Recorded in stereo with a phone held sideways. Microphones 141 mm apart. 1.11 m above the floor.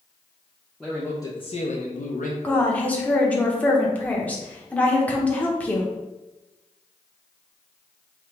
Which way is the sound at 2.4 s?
10° left (ahead or behind).